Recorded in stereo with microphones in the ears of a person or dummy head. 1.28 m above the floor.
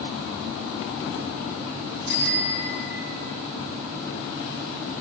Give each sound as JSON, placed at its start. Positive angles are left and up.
{"t": 2.1, "sound": "a bicycle bell", "side_deg": 65, "distance_m": 3.5}